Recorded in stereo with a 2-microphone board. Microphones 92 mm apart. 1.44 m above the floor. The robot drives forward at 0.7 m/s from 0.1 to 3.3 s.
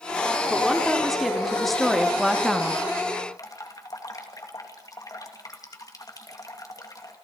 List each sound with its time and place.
0.5 s a woman speaking: centre (ahead or behind), 3.5 m
3.4 s dripping: 40° left (ahead or behind), 2.5 m